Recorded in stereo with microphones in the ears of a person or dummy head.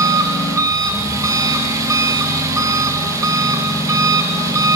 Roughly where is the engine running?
Centre.